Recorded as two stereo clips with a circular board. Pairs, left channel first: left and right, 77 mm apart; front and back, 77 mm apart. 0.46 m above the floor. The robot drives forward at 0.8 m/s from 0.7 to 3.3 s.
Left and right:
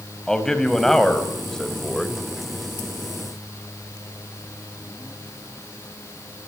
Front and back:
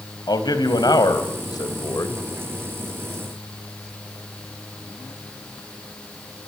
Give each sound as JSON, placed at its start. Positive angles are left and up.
{"t": 0.3, "sound": "a man speaking", "azimuth_deg": 5, "distance_m": 3.5}